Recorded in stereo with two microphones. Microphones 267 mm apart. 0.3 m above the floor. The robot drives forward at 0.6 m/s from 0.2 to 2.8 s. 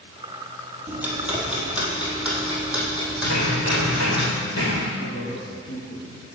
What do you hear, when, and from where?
0.9 s ticking: 5° right (ahead or behind), 2 m
3.2 s hammering: 85° left, 3 m
5.0 s a man speaking: 45° left (ahead or behind), 2.5 m